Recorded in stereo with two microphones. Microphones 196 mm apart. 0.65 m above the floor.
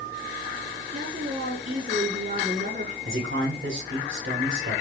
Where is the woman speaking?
45° right (ahead or behind), 8 m.